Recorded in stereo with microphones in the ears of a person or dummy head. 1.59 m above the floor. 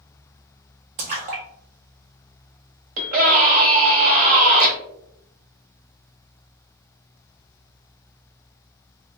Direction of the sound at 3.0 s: 40° right (ahead or behind).